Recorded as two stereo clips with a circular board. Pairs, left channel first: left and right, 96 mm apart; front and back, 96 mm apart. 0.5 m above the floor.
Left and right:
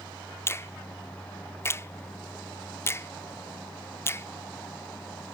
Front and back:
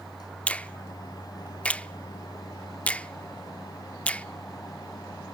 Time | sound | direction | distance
0.5 | a finger snap | 65° left | 0.5 m